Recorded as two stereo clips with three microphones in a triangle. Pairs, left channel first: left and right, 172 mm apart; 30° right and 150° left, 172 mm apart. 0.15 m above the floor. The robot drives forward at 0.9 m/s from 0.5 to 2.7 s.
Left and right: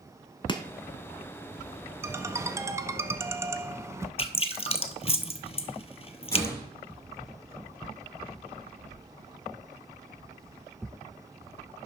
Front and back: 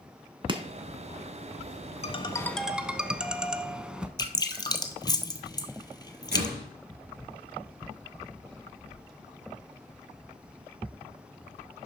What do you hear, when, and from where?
0.5 s chopping: 125° left, 0.8 m; by 0.6 s 135° left, 0.8 m
2.0 s a ringtone: 25° right, 0.8 m; by 4.1 s 135° right, 0.7 m
4.2 s dripping: 35° left, 0.7 m
6.3 s a door slam: 160° left, 2.5 m